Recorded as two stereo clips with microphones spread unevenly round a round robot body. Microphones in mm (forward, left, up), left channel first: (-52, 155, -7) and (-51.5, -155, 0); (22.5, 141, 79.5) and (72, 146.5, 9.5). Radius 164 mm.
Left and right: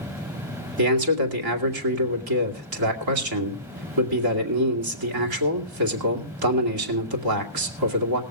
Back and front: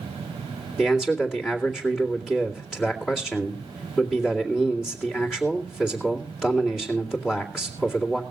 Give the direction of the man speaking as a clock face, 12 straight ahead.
2 o'clock.